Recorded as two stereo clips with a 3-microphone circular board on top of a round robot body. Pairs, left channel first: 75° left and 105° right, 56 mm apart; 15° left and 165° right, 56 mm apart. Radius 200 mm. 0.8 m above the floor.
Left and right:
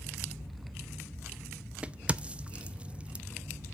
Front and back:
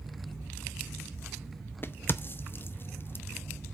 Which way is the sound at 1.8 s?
35° right.